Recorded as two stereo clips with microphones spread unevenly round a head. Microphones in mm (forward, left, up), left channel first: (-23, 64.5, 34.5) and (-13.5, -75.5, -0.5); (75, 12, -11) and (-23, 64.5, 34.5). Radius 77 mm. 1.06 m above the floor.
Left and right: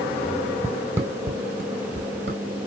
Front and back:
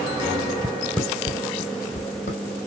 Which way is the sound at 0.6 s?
Straight behind.